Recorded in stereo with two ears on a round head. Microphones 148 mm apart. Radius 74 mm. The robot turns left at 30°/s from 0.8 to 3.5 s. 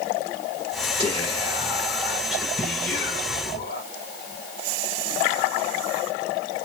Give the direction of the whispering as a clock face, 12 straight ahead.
5 o'clock.